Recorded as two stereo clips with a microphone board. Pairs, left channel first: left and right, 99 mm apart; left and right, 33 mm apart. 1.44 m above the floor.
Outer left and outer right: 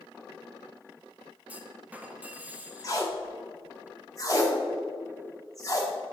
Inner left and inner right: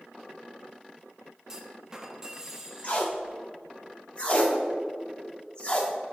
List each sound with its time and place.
1.5 s a clunk: 15° right (ahead or behind), 0.7 m
2.8 s tape being pulled: 35° left (ahead or behind), 1.2 m